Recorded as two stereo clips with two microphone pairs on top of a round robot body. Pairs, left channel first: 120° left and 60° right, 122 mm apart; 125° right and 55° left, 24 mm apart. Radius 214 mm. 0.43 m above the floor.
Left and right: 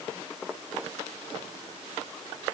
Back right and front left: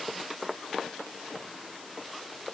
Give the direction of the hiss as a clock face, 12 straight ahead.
No hiss in this recording.